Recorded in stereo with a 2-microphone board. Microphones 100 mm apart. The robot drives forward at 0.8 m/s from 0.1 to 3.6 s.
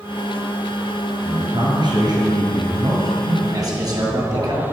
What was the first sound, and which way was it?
A man speaking, 50° right (ahead or behind).